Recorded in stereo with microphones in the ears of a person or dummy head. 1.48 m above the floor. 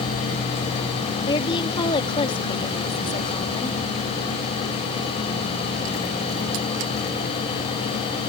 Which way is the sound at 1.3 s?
30° left (ahead or behind).